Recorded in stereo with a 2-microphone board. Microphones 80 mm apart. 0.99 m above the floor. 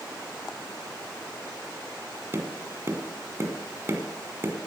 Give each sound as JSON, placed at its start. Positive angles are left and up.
{"t": 2.3, "sound": "tapping", "side_deg": -35, "distance_m": 1.4}